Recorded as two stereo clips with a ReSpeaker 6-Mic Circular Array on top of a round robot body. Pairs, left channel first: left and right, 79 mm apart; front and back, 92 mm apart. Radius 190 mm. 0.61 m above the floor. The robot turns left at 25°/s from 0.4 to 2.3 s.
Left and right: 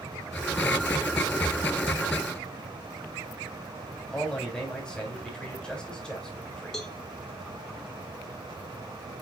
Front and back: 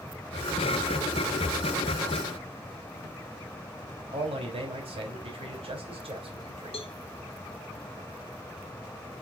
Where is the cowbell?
5° left, 2.0 m.